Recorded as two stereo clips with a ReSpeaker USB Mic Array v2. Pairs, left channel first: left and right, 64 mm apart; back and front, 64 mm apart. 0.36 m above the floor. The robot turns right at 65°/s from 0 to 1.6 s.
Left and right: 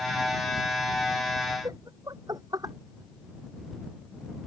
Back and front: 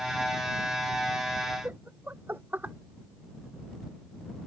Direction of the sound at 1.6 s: 60° right.